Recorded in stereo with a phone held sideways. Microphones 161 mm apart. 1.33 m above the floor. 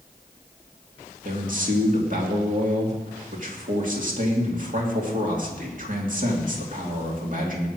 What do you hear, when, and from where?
1.2 s a man speaking: 55° right (ahead or behind), 2.5 m